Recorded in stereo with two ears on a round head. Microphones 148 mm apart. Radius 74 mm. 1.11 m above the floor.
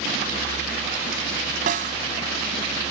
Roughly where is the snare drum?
Right.